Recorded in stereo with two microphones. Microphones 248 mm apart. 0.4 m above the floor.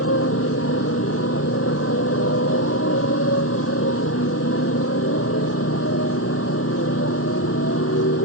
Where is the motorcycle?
70° left (ahead or behind).